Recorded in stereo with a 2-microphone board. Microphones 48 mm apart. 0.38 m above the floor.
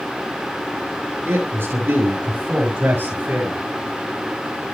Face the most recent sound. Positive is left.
turn(degrees=-40)  # may be behind; listen again after turning